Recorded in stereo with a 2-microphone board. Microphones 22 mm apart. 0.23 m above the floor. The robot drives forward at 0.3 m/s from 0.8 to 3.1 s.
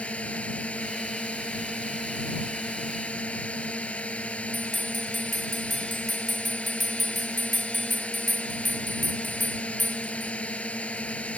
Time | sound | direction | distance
0.0 | a drone | 70° left (ahead or behind) | ?
4.5 | a bell | 5° left (ahead or behind) | ?